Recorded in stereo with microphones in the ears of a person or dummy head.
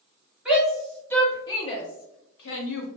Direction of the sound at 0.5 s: 10° right (ahead or behind).